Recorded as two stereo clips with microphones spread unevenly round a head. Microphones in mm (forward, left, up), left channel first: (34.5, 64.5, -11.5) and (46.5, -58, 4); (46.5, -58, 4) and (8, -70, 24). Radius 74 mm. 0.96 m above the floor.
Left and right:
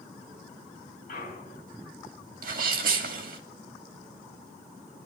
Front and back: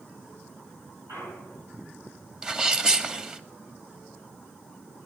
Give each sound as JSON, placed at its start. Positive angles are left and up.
{"t": 1.1, "sound": "a clunk", "azimuth_deg": 140, "distance_m": 5.0}
{"t": 2.4, "sound": "a sneeze", "azimuth_deg": -85, "distance_m": 2.5}